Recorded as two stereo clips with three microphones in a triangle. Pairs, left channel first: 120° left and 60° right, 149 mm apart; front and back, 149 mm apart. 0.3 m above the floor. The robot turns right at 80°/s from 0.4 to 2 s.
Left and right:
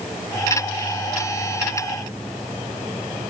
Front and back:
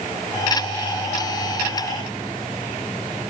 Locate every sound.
Only background noise.